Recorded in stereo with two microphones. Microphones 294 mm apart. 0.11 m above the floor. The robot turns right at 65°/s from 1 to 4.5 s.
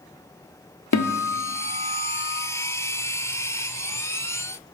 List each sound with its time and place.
0.9 s a guitar: 105° left, 0.5 m; by 2.4 s 170° right, 0.5 m